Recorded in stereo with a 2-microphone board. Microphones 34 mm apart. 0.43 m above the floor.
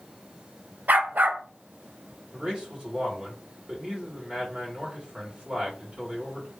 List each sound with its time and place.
0.9 s a dog barking: 65° right (ahead or behind), 0.5 m
2.3 s a man speaking: 35° right (ahead or behind), 1.5 m